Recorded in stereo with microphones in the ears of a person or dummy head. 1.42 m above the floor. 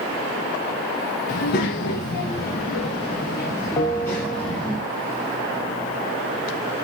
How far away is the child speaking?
About 1.0 m.